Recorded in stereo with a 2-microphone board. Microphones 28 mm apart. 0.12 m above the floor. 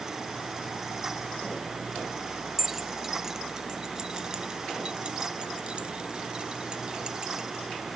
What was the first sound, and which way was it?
Keys jangling, 10° right (ahead or behind).